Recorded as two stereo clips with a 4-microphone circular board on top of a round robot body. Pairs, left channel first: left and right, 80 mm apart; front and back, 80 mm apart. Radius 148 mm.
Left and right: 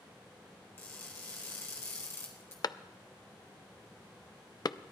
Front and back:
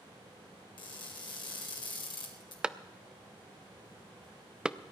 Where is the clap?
105° left, 0.6 m.